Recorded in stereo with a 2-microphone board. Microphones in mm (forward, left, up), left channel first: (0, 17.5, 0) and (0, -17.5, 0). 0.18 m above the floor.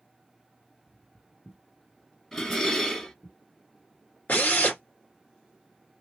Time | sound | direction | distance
0.9 | footsteps | 30° right (ahead or behind) | 0.7 m
2.3 | dishes clattering | 15° left (ahead or behind) | 1.7 m
4.3 | a drill | 45° left (ahead or behind) | 1.7 m